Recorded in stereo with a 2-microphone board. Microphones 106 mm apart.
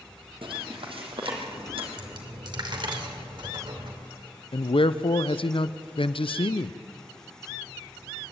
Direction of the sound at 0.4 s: 60° right (ahead or behind).